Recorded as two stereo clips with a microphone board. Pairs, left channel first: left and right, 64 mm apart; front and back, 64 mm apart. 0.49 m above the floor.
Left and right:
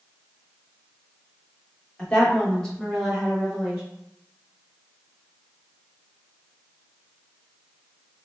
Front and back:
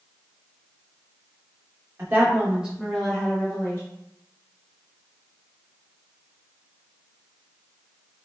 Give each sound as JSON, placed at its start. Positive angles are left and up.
{"t": 2.0, "sound": "a woman speaking", "azimuth_deg": 145, "distance_m": 1.1}